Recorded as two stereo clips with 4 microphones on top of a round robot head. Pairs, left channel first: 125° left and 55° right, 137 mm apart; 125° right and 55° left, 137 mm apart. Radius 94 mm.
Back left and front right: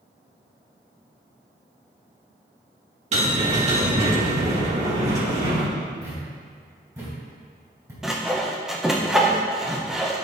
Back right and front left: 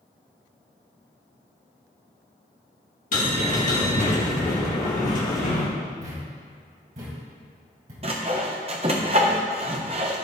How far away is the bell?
About 2.5 m.